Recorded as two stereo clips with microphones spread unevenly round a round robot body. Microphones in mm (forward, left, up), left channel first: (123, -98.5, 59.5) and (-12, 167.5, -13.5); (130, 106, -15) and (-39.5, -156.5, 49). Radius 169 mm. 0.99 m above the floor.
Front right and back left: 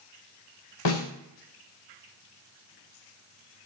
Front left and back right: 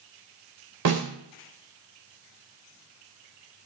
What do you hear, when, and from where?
0.8 s a snare drum: 90° right, 3.5 m